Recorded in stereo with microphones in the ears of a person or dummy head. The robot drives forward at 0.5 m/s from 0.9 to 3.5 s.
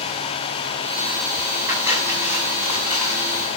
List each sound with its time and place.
1.7 s cutlery clinking: 10° right (ahead or behind), 7 m